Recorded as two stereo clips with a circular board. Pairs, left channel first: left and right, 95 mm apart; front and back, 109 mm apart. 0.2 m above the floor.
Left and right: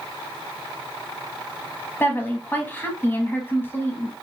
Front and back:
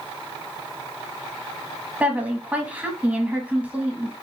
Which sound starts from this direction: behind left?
A woman speaking, at 2.0 s.